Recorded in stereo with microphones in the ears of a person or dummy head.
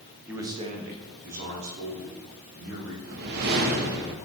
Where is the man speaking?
5° right (ahead or behind), 0.9 m; by 2.9 s 80° right, 3 m.